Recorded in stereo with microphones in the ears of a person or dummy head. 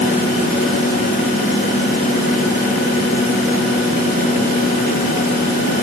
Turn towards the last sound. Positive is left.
No sound to turn to.